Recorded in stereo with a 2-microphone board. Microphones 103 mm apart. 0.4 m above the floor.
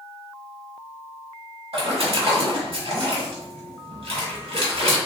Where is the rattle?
I don't hear a rattle.